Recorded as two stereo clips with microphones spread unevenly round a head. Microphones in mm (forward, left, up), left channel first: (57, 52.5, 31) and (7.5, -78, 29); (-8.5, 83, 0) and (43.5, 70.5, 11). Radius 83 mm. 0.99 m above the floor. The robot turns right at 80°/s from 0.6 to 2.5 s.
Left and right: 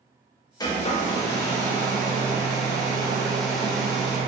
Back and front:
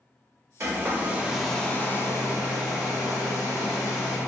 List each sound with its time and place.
0.6 s a hair dryer: 5° left, 0.7 m; by 4.2 s 160° left, 0.7 m